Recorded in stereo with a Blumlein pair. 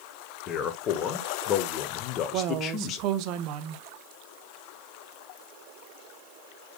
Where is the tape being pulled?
No tape being pulled in this recording.